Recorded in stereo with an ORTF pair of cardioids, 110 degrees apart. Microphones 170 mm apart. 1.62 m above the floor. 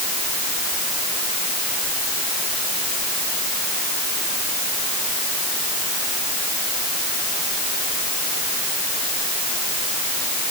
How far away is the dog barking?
No dog barking in this recording.